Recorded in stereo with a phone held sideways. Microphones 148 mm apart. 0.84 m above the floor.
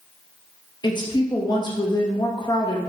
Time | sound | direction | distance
0.8 | a woman speaking | 30° left (ahead or behind) | 0.9 m